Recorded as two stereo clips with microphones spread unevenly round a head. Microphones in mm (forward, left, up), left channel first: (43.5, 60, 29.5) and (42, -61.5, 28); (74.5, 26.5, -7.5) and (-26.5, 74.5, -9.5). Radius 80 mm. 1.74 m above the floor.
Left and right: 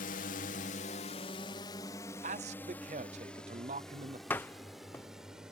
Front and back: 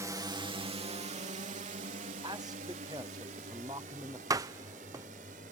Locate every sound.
0.0 s a drone: 95° left; by 5.5 s 175° right
2.2 s a man speaking: 135° right
4.3 s a door slam: 155° left